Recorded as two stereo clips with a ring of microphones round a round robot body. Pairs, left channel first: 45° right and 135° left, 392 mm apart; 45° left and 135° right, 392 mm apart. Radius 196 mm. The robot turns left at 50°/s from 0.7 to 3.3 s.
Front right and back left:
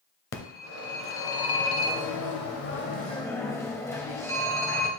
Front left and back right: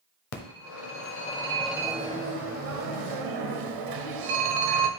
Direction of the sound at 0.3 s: 5° left.